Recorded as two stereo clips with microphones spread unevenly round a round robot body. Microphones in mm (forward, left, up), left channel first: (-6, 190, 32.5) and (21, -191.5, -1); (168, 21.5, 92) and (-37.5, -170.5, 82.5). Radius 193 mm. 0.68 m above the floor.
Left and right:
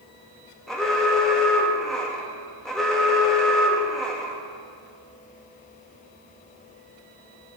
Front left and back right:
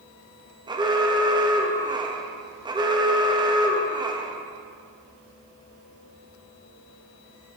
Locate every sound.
0.7 s an alarm: 165° right, 1.4 m